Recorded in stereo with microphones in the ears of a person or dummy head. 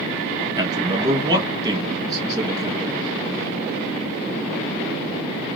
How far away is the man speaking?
About 1.9 m.